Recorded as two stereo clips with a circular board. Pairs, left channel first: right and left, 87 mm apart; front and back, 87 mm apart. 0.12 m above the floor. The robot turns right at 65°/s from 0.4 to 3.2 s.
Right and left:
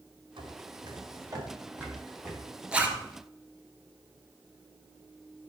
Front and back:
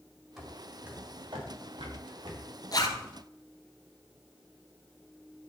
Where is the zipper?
15° left, 1.5 m; by 3.0 s 35° left, 1.5 m.